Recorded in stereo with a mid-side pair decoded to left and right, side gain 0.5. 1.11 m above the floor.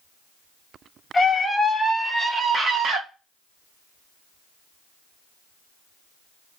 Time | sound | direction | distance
1.1 | a scream | 25° left | 0.7 m